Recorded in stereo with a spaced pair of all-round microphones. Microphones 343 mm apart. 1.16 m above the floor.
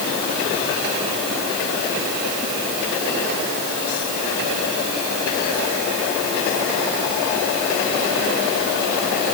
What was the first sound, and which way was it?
Only background noise.